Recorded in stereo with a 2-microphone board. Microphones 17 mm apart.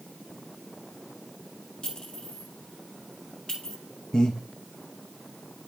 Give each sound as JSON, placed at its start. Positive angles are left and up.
{"t": 1.8, "sound": "a clink", "side_deg": 65, "distance_m": 3.5}
{"t": 4.1, "sound": "breathing", "side_deg": 50, "distance_m": 1.5}